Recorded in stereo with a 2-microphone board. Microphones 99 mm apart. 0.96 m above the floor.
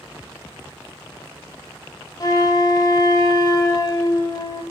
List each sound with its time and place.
2.2 s a flute: 40° left (ahead or behind), 1.0 m